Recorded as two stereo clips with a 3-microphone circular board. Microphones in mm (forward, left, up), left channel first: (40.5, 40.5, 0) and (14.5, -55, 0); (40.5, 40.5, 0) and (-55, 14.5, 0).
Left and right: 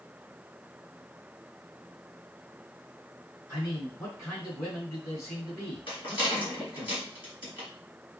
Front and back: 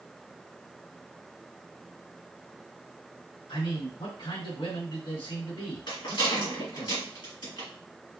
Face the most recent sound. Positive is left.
turn(degrees=45)